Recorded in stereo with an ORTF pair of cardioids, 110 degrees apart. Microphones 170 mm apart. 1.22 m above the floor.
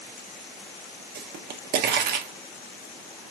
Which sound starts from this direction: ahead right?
A pop, at 1.1 s.